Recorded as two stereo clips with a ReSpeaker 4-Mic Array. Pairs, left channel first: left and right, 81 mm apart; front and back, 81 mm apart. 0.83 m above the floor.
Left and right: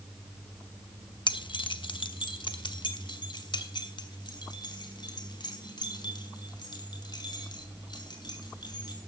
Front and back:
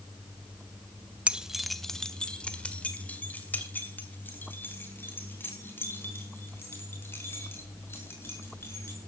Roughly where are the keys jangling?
Left.